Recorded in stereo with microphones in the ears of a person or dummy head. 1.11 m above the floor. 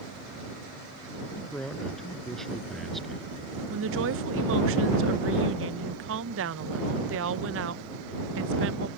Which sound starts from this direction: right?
A woman speaking, at 3.7 s.